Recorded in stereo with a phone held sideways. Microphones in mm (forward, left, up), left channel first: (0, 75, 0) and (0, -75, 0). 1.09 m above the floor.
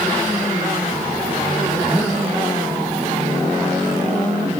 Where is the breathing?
10° right (ahead or behind), 1.4 m.